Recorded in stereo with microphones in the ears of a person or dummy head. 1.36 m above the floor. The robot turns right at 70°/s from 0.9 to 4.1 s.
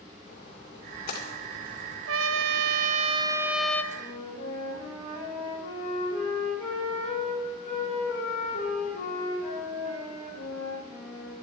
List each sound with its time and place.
0.3 s a splash: 40° left (ahead or behind), 2.5 m; by 2.0 s 60° left (ahead or behind), 2.5 m
2.1 s a trumpet: 105° right, 0.7 m; by 3.8 s 15° left, 0.7 m
3.9 s a flute: 50° left (ahead or behind), 5 m; by 11.4 s 35° left (ahead or behind), 5 m